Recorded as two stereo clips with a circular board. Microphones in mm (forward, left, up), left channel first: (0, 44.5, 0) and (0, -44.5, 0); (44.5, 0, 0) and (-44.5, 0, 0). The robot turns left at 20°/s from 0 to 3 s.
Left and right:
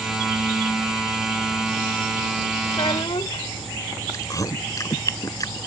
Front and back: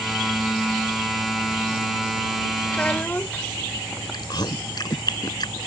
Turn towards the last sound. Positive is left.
turn(degrees=40)